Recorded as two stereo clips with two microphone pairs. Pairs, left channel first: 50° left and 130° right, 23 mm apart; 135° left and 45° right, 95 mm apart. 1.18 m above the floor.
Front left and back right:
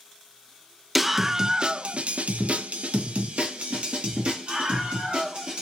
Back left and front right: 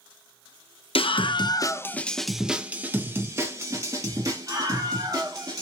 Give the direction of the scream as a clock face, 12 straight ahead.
7 o'clock.